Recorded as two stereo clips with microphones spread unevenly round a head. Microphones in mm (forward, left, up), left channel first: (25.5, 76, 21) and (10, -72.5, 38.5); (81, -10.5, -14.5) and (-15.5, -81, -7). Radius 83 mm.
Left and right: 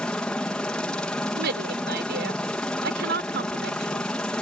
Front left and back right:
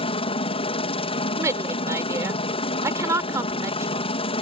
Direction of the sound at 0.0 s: Straight ahead.